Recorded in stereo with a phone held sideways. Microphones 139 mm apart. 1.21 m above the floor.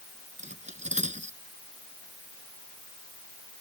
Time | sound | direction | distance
0.4 | cutlery clinking | 60° right (ahead or behind) | ?